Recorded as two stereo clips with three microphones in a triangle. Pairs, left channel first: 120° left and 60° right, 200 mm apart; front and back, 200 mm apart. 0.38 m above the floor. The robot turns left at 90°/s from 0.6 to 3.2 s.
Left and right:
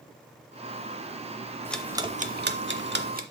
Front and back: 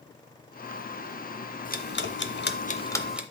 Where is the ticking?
40° left, 0.6 m; by 3.2 s 95° right, 0.6 m.